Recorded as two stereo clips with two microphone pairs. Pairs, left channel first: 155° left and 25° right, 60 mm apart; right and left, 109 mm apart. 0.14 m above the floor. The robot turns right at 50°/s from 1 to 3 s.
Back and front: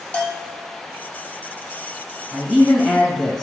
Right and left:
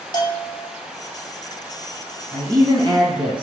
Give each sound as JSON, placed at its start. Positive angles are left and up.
{"t": 0.1, "sound": "a bell", "azimuth_deg": -135, "distance_m": 0.6}
{"t": 2.3, "sound": "a man speaking", "azimuth_deg": 55, "distance_m": 1.4}